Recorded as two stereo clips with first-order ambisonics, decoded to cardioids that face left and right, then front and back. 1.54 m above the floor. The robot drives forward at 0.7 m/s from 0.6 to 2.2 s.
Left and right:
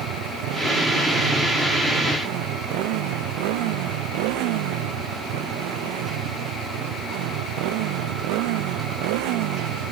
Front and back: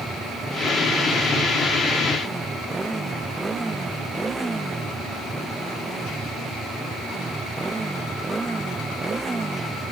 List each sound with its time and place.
0.0 s a motorcycle: 100° right